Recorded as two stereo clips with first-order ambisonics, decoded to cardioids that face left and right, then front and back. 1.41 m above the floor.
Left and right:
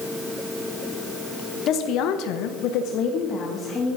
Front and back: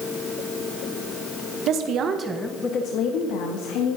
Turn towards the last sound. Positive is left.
turn(degrees=20)